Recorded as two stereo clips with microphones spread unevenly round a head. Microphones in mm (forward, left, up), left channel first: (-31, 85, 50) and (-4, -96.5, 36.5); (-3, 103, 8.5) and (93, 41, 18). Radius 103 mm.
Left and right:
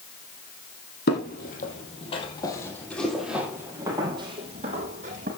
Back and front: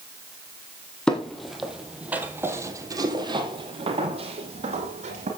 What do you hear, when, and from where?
1.1 s footsteps: 60° left, 3 m; by 5.3 s 30° right, 3.5 m